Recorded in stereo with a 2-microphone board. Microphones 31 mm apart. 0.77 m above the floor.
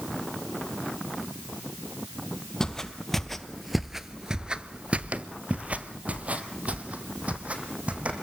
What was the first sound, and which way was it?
Footsteps, 15° left (ahead or behind).